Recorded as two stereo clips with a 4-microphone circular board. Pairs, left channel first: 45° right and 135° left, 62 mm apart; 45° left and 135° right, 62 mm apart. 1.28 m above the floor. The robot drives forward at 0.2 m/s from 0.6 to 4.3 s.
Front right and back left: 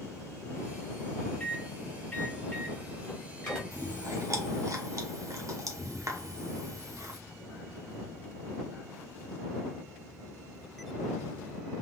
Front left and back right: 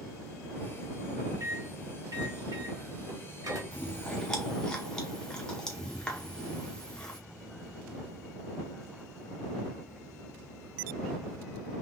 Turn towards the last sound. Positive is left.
turn(degrees=120)